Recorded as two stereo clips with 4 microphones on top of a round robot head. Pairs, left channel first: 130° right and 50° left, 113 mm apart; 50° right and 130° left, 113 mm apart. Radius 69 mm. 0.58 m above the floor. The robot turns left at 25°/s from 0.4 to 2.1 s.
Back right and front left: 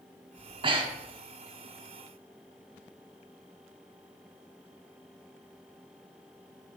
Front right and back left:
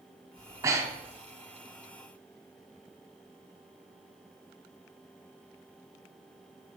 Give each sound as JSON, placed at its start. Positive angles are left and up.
{"t": 0.4, "sound": "breathing", "azimuth_deg": 80, "distance_m": 1.5}